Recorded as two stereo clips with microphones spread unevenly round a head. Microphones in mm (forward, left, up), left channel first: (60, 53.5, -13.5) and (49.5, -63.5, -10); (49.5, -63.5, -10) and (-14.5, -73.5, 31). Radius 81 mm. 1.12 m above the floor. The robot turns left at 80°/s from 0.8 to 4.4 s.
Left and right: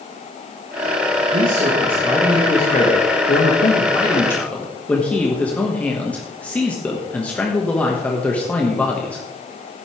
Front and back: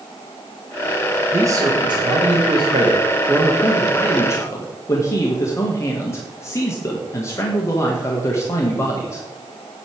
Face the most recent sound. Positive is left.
turn(degrees=10)